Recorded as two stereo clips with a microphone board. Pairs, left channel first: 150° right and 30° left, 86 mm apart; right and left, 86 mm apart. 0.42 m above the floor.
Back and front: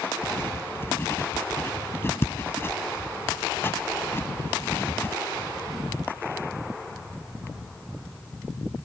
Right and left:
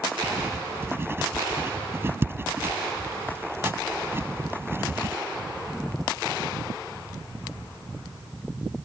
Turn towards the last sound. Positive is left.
turn(degrees=150)